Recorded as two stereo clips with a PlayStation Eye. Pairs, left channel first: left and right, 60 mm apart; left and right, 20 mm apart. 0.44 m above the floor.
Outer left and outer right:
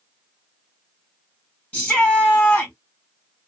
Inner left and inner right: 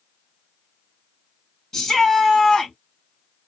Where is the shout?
25° left (ahead or behind), 1.8 m.